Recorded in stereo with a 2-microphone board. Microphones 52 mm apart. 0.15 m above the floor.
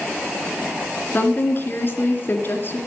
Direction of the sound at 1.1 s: 45° left (ahead or behind).